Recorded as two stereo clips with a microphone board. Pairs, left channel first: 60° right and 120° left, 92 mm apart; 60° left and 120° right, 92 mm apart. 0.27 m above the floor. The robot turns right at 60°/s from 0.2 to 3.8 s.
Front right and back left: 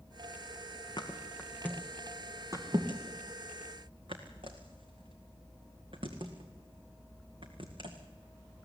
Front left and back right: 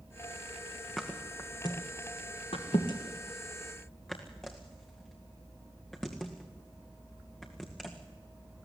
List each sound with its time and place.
1.0 s a thud: 25° right, 2.5 m; by 8.0 s 145° left, 2.5 m